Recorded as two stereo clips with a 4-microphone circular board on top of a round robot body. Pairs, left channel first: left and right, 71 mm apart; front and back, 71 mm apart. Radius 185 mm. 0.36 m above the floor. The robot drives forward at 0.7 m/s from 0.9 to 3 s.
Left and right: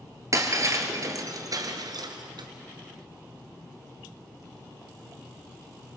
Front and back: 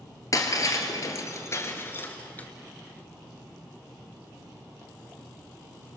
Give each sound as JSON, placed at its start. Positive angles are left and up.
{"t": 0.3, "sound": "breaking glass", "azimuth_deg": -45, "distance_m": 2.0}